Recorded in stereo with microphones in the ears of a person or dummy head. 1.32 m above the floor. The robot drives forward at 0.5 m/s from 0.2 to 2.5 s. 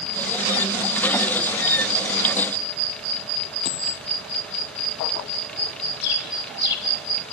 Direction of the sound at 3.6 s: 35° left (ahead or behind).